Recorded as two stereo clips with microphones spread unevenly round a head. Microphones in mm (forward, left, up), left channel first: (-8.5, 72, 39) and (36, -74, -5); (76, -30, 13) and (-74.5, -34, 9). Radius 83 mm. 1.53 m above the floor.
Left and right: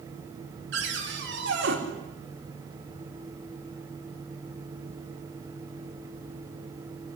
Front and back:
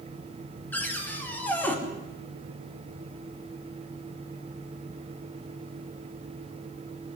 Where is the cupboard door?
75° right, 4 m.